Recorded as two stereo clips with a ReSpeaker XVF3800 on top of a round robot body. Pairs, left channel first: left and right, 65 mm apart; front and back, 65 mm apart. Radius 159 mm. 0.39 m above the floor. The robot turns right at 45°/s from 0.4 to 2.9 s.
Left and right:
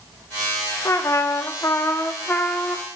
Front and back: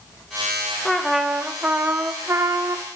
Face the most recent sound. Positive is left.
turn(degrees=175)